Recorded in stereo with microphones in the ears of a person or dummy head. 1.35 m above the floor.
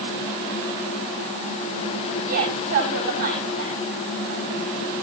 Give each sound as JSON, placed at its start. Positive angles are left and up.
{"t": 2.3, "sound": "a woman speaking", "side_deg": -50, "distance_m": 9.5}